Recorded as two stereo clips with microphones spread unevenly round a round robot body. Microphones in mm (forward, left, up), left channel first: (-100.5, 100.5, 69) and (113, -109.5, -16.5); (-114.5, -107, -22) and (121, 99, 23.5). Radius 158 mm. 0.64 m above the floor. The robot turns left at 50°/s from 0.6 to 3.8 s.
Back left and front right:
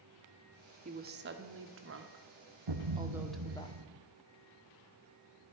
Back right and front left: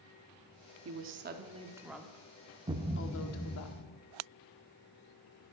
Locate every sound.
0.8 s a woman speaking: straight ahead, 1.6 m; by 3.7 s 140° right, 1.6 m
2.7 s a thud: 30° right, 1.8 m; by 4.0 s 85° right, 1.8 m